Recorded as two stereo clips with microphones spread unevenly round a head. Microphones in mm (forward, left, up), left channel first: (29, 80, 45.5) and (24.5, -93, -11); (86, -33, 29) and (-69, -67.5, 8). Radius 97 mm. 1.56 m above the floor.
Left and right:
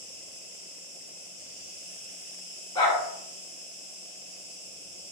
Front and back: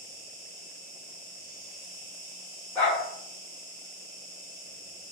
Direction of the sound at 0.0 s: 100° right.